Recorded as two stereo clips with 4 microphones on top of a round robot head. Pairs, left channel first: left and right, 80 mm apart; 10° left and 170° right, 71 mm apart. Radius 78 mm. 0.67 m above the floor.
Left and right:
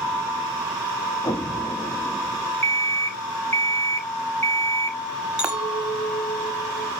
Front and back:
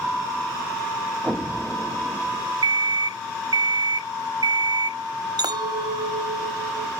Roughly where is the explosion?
Behind left.